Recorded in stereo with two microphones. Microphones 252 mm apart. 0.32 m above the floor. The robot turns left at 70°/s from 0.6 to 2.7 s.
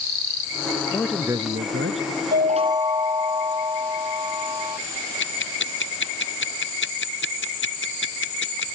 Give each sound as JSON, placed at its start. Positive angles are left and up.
{"t": 0.9, "sound": "a man speaking", "azimuth_deg": 15}
{"t": 2.3, "sound": "a chime", "side_deg": -45}
{"t": 5.2, "sound": "ticking", "side_deg": 50}